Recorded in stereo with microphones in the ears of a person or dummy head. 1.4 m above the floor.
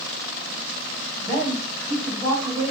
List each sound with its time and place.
1.2 s a woman speaking: centre (ahead or behind), 2.5 m; by 2.7 s 15° right (ahead or behind), 2 m